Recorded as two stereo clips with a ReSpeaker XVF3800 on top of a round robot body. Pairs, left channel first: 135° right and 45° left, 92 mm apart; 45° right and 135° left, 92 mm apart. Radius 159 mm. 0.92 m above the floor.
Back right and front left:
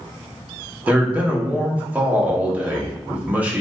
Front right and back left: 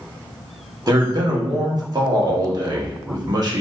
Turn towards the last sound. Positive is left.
turn(degrees=115)